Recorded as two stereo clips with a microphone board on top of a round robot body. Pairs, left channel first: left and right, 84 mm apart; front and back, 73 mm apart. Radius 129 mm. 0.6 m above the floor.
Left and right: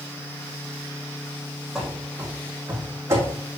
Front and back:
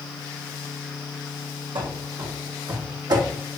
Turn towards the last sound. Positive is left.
turn(degrees=-145)